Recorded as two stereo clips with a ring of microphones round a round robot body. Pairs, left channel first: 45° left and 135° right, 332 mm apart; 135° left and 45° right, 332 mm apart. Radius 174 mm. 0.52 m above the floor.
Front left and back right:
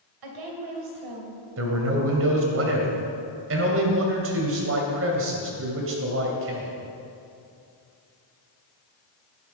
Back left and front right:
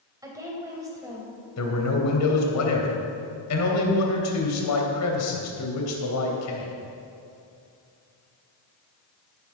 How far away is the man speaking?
About 2.5 m.